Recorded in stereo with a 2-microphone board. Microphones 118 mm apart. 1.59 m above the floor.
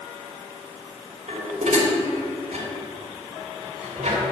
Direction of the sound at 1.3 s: 70° right (ahead or behind).